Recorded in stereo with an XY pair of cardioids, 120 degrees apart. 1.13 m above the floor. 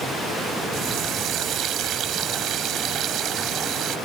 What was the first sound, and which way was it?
A running tap, 60° right.